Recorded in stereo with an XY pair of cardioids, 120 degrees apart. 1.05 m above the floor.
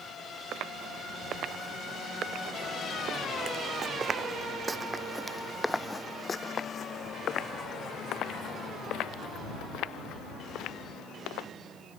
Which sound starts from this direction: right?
Footsteps, at 0.5 s.